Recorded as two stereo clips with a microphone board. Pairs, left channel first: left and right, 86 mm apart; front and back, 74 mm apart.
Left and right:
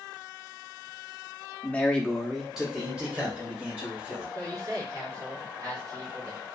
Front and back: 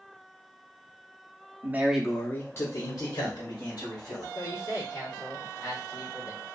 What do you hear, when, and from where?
1.6 s a man speaking: 150° left, 0.6 m; by 4.2 s 15° right, 1.8 m
4.3 s a man speaking: 45° right, 1.5 m